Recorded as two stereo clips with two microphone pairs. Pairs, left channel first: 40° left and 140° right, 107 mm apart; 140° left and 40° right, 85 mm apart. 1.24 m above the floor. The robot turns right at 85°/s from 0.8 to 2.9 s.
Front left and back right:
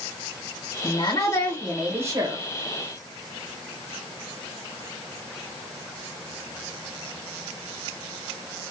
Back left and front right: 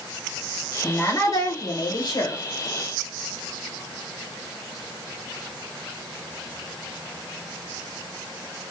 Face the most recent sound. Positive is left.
turn(degrees=-130)